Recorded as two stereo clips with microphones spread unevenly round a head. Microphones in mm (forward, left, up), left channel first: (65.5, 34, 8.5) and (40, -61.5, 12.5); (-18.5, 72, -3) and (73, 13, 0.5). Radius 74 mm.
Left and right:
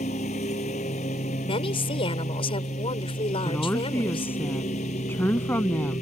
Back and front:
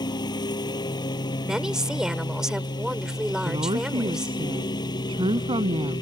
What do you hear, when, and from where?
0.0 s a lawn mower: 100° left
1.4 s a woman speaking: 50° left
3.5 s a woman speaking: 5° left